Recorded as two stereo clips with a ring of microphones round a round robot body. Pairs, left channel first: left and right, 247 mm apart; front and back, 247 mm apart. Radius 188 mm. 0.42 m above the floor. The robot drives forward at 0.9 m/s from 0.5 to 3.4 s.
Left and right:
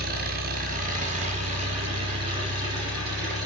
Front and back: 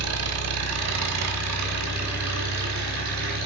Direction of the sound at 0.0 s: 150° right.